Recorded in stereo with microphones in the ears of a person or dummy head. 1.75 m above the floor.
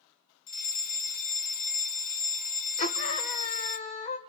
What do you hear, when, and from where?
0.5 s a fire alarm: 40° left (ahead or behind), 1.0 m
2.8 s a scream: 35° left (ahead or behind), 1.4 m